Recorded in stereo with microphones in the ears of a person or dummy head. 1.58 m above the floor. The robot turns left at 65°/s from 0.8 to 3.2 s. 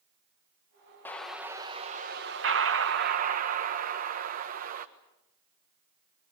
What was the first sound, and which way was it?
An explosion, 10° left.